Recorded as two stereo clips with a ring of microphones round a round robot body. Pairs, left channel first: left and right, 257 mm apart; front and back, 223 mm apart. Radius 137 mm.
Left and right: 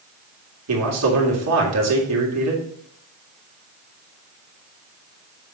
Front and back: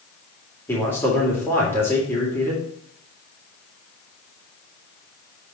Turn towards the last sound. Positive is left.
turn(degrees=-80)